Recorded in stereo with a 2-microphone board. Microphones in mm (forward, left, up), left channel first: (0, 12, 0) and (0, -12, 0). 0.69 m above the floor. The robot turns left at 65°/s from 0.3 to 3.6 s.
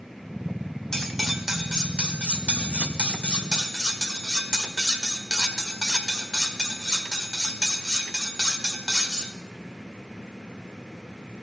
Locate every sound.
0.9 s cutlery clinking: 20° left, 1.4 m; by 9.3 s 155° right, 1.4 m